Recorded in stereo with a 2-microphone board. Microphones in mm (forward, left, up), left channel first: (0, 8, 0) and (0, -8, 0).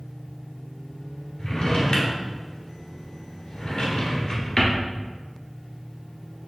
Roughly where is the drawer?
Left.